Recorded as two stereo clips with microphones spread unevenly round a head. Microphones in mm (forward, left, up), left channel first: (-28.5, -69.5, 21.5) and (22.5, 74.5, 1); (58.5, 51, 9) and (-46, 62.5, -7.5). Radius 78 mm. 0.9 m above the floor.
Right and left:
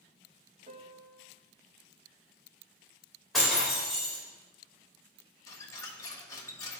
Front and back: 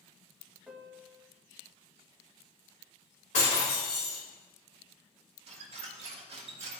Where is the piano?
90° left, 1.1 m.